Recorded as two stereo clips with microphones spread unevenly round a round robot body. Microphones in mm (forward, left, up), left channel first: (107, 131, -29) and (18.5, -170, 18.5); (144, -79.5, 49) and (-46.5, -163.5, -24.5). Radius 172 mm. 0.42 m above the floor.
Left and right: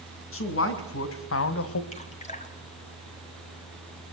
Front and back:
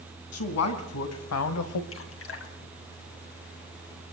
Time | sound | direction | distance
0.3 | a man speaking | 30° left | 4 m
1.9 | dripping | 5° left | 3 m